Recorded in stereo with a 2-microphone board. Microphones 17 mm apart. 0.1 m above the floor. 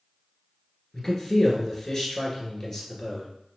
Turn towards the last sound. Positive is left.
turn(degrees=15)  # may be behind; listen again after turning